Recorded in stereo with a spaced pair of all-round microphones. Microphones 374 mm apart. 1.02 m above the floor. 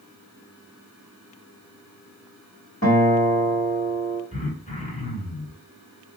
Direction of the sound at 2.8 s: 40° left (ahead or behind).